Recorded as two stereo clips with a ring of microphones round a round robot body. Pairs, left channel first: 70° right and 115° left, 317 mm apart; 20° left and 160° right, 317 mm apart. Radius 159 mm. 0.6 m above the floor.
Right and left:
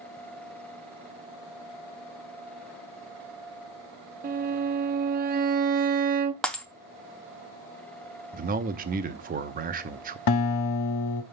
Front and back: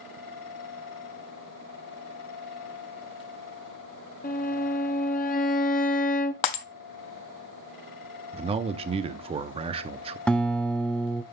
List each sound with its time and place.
4.2 s a violin: 70° left, 0.6 m
6.4 s breaking glass: 20° left, 0.7 m
8.3 s a man speaking: 145° left, 0.7 m
10.3 s a guitar: 65° right, 0.6 m